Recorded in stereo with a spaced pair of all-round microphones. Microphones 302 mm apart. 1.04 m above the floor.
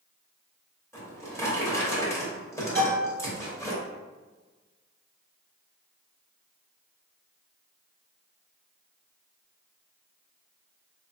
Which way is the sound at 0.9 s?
10° left (ahead or behind).